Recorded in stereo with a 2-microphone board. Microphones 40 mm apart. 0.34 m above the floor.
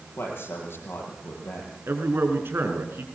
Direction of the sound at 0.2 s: 60° left (ahead or behind).